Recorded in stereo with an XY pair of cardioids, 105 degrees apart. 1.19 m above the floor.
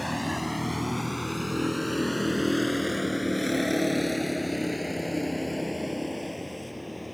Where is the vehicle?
5° left; by 7.2 s 10° left.